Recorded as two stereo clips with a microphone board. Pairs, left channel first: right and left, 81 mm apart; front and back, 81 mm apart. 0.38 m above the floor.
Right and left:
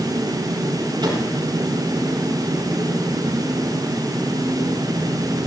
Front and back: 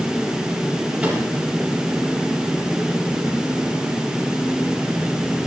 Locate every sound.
1.0 s a microwave: 105° left, 7 m